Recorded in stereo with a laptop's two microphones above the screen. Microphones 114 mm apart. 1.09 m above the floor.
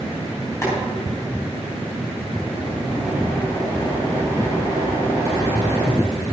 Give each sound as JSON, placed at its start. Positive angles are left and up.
{"t": 0.6, "sound": "boiling", "side_deg": 25, "distance_m": 3.5}